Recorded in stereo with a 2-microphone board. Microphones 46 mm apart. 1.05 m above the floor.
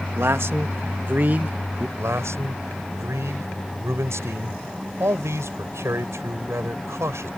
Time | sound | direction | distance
0.1 | a man speaking | 65° right (ahead or behind) | ?
2.0 | a man speaking | 80° right | ?